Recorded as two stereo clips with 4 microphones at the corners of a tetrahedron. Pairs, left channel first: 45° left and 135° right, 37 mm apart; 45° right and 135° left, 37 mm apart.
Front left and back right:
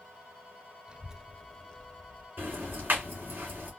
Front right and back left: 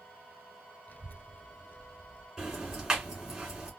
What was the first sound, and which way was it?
A child speaking, 75° right.